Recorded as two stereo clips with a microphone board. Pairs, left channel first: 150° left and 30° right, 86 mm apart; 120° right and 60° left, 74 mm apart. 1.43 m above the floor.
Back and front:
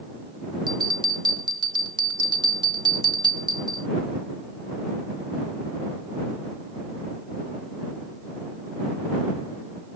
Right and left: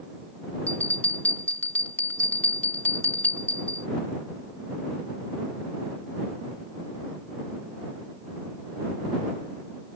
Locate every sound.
0.7 s a bell: 55° right